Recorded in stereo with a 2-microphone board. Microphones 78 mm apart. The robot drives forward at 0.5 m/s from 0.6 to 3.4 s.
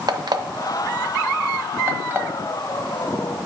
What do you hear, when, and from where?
0.1 s an alarm clock: 60° right (ahead or behind), 0.6 m; by 2.3 s 25° right (ahead or behind), 1.2 m